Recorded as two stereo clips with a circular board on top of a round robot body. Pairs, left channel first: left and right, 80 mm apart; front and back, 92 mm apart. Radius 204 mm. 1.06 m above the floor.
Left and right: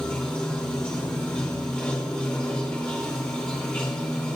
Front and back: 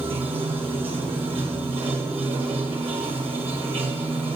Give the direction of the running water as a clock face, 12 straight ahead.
6 o'clock.